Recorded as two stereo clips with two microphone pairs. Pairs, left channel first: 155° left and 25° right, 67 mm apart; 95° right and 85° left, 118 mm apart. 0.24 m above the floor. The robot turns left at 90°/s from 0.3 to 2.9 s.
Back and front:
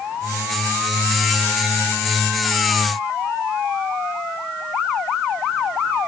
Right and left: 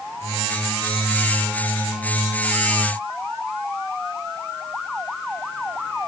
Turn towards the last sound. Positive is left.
No sound to turn to.